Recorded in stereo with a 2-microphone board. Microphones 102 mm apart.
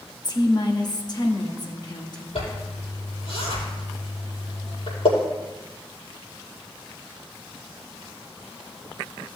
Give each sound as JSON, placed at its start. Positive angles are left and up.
{"t": 0.2, "sound": "a woman speaking", "side_deg": 40, "distance_m": 1.4}
{"t": 2.4, "sound": "a zipper", "side_deg": 75, "distance_m": 5.0}